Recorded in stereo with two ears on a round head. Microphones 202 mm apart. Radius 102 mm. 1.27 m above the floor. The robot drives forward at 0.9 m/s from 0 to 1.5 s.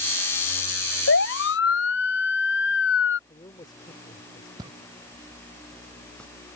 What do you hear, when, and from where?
1.1 s a siren: 55° left (ahead or behind)
3.3 s a man speaking: 20° left (ahead or behind)
4.6 s footsteps: 20° right (ahead or behind); by 6.3 s 5° left (ahead or behind)